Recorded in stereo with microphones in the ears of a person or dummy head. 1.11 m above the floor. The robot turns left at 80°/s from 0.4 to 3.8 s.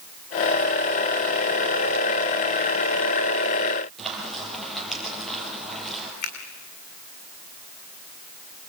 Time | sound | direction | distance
4.0 | frying | 5° left (ahead or behind) | 6.5 m
6.2 | a finger snap | 50° left (ahead or behind) | 3 m